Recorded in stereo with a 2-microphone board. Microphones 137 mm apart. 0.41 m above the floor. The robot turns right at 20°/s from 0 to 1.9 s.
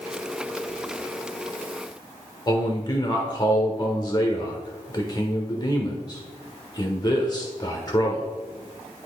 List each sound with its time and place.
2.5 s a man speaking: 30° left (ahead or behind), 1.1 m